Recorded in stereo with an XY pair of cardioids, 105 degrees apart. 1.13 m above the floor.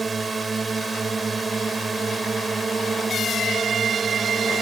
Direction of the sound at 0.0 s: 30° right.